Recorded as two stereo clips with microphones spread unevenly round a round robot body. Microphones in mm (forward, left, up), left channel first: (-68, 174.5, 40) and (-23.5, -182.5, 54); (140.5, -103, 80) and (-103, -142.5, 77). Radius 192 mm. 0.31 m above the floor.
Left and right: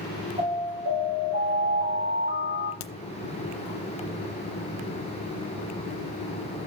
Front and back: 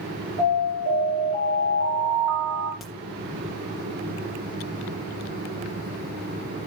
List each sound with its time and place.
0.4 s an alarm: 155° right, 4.5 m
2.8 s a crack: 100° left, 0.8 m